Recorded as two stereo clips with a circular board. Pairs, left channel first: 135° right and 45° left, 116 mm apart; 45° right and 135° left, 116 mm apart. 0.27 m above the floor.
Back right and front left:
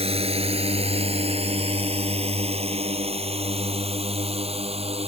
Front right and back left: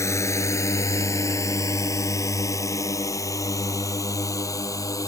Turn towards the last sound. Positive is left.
turn(degrees=15)